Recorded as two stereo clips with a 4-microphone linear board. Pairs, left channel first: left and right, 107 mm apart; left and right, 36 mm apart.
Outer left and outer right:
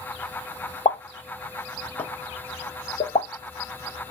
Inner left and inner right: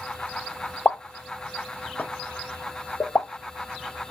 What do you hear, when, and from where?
0.8 s a pop: 75° left (ahead or behind), 0.7 m